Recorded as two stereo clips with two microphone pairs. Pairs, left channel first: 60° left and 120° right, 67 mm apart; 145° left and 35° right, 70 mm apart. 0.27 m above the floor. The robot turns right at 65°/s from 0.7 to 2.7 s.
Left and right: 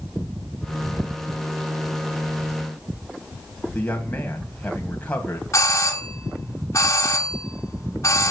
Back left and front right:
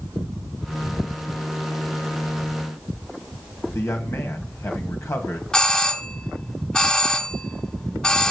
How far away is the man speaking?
About 1.7 m.